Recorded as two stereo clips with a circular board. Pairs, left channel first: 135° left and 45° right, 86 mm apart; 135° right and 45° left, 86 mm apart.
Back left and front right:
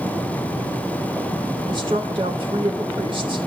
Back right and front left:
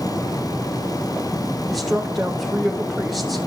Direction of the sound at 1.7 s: 45° right.